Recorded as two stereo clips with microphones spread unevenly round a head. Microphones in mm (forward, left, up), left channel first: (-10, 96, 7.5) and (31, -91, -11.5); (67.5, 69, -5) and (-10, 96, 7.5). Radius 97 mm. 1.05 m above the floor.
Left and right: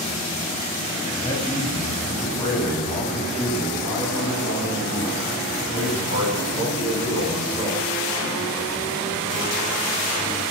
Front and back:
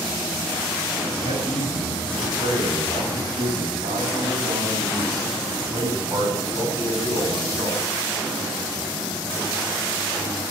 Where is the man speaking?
170° left, 7 m; by 7.8 s 115° left, 8.5 m.